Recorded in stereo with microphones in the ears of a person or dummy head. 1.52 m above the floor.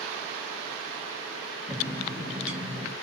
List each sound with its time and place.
1.7 s a bird: 5° right (ahead or behind), 0.7 m